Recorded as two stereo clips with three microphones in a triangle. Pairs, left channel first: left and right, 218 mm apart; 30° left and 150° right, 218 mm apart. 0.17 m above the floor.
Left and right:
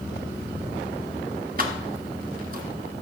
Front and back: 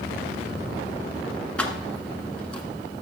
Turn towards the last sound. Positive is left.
turn(degrees=-55)